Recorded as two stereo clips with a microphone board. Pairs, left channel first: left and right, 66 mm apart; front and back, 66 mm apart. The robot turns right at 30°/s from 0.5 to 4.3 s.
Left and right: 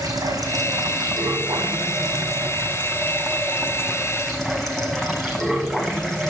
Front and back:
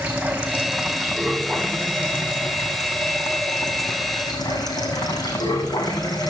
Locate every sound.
0.0 s running water: 105° right, 2.5 m; by 6.3 s 10° left, 2.5 m